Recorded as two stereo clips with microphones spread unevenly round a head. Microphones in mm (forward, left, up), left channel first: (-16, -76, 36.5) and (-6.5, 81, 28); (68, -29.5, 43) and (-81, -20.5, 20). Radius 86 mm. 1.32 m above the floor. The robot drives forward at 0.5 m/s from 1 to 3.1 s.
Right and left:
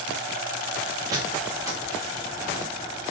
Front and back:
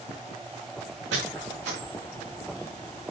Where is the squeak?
155° left, 5.5 m.